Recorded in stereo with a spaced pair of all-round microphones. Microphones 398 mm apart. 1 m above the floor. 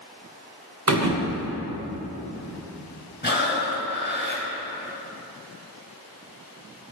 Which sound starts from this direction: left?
Breathing, at 3.2 s.